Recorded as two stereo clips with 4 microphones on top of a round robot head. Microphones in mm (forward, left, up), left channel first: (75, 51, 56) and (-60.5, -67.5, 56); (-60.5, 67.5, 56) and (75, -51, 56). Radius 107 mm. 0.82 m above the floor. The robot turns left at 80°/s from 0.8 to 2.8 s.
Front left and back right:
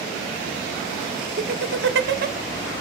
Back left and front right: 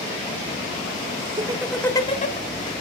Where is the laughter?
100° right, 2 m; by 2.4 s 175° left, 2 m.